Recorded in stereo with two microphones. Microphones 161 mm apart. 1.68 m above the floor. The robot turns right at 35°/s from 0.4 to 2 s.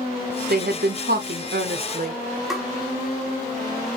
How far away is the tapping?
About 1.5 m.